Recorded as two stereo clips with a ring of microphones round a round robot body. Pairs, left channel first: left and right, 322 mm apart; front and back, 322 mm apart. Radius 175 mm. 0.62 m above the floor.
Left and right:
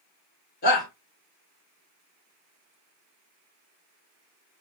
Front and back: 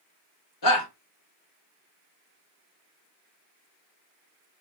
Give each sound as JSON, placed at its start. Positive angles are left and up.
{"t": 0.6, "sound": "a shout", "azimuth_deg": 25, "distance_m": 3.5}